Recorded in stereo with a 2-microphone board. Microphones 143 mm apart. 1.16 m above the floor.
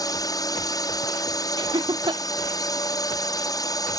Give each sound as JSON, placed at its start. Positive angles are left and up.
{"t": 0.0, "sound": "a drone", "side_deg": 25}
{"t": 1.6, "sound": "laughter", "side_deg": -30}